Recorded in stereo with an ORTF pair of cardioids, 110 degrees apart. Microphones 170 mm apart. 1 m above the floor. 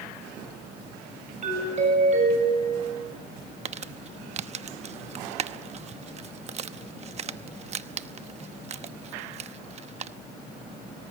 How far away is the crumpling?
About 1.0 m.